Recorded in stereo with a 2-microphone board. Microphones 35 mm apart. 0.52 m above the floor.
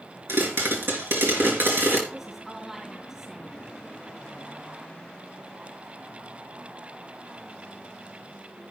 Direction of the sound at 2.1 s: 15° right (ahead or behind).